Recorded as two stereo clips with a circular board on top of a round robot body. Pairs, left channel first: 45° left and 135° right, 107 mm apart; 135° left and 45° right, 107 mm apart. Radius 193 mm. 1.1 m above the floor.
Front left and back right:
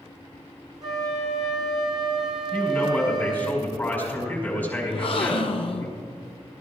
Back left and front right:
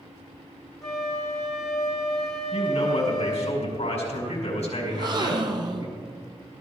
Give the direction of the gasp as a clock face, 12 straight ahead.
12 o'clock.